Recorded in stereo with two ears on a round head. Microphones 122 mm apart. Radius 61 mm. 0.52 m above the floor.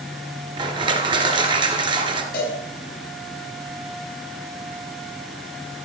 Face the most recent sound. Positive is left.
turn(degrees=65)  # may be behind; listen again after turning